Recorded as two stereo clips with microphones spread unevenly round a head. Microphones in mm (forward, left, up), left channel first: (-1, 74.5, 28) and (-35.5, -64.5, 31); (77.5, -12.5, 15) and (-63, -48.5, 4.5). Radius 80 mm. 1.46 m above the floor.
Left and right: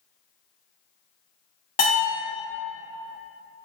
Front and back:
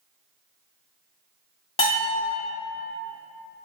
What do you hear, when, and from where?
1.8 s a bell: 40° left, 1.0 m